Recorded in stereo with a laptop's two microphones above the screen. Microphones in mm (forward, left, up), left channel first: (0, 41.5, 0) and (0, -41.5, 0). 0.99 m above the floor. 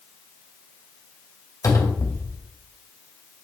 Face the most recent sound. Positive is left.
turn(degrees=40)  # may be behind; listen again after turning